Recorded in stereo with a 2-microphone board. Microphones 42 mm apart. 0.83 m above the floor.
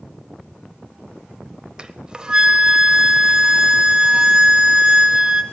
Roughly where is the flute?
Right.